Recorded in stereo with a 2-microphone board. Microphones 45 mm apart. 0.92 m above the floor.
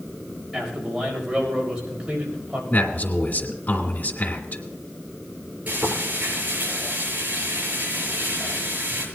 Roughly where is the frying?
Right.